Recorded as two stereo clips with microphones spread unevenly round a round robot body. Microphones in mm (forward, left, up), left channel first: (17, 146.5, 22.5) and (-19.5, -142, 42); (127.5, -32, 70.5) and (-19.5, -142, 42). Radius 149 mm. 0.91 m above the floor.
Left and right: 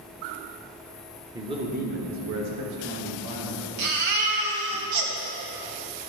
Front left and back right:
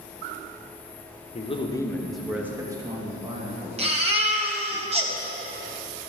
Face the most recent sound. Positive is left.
turn(degrees=-85)